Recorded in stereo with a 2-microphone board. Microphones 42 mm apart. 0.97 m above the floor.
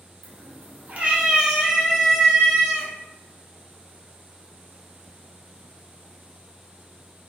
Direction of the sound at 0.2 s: 75° right (ahead or behind).